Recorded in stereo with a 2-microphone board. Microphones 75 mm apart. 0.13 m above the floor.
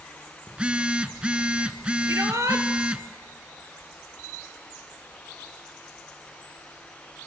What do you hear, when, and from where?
0.5 s a phone buzzing: 15° right (ahead or behind), 0.7 m
2.1 s a shout: 40° right (ahead or behind), 2 m